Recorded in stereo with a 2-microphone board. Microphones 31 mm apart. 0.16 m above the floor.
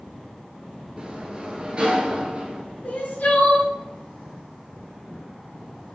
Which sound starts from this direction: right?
A sliding door, at 1.0 s.